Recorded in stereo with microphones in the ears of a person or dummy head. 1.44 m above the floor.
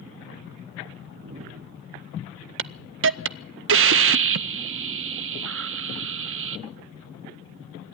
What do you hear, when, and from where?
1.0 s a whoosh: 45° right (ahead or behind), 0.9 m
2.6 s a hiss: 60° right (ahead or behind), 0.5 m